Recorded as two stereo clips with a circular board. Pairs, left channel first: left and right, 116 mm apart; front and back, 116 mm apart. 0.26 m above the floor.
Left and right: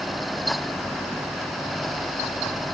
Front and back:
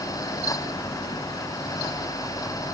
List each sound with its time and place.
Only background noise.